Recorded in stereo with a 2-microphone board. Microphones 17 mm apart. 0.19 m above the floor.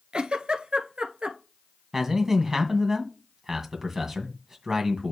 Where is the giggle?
70° right (ahead or behind), 1.1 m.